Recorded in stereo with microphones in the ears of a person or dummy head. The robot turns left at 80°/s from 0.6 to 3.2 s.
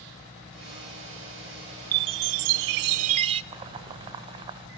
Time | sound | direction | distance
1.9 | a chime | 35° right | 0.7 m
3.5 | boiling | 30° right (ahead or behind) | 2 m